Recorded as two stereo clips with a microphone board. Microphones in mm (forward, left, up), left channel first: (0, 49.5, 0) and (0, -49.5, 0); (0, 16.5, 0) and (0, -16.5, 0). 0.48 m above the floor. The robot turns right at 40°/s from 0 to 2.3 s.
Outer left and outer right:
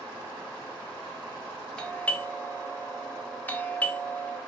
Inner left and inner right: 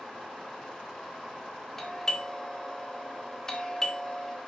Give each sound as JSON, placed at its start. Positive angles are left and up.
{"t": 1.8, "sound": "a doorbell", "side_deg": 10, "distance_m": 1.5}